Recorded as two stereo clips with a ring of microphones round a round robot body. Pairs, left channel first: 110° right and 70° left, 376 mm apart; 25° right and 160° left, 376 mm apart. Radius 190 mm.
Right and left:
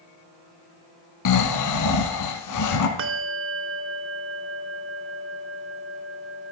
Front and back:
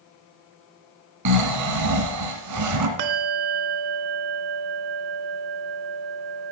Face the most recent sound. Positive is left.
turn(degrees=130)